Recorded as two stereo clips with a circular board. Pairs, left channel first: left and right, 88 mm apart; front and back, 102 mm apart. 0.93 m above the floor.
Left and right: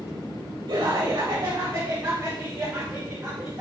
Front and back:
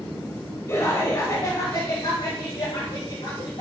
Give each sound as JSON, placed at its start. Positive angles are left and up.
{"t": 0.7, "sound": "laughter", "azimuth_deg": -55, "distance_m": 3.0}